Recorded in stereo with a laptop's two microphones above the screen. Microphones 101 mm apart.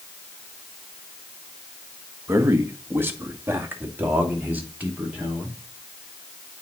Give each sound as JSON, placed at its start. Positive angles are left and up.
{"t": 2.3, "sound": "a man speaking", "side_deg": -25, "distance_m": 1.3}